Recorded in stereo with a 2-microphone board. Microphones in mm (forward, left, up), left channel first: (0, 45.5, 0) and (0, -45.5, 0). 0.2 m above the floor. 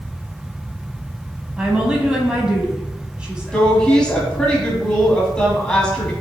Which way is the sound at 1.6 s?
10° right (ahead or behind).